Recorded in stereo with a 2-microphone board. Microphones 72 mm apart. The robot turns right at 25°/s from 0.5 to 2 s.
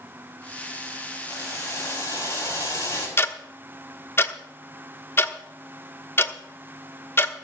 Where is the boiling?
50° left (ahead or behind), 5 m; by 3.1 s 35° left (ahead or behind), 5 m.